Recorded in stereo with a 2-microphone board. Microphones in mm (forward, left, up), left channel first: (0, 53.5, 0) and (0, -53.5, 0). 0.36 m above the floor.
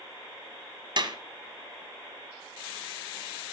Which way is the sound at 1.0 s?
50° right (ahead or behind).